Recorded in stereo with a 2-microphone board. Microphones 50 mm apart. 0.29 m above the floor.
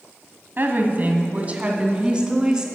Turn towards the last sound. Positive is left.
turn(degrees=-15)  # may be behind; listen again after turning